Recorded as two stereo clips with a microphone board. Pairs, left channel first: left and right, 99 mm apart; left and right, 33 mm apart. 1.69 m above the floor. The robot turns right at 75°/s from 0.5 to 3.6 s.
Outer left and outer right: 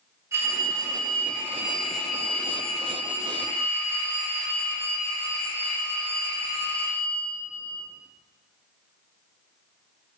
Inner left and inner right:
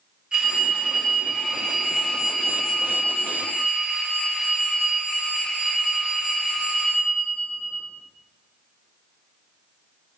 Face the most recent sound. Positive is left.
turn(degrees=20)  # may be behind; listen again after turning